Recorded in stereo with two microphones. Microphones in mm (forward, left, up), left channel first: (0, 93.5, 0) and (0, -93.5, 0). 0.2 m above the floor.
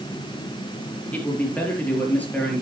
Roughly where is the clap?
I don't hear a clap.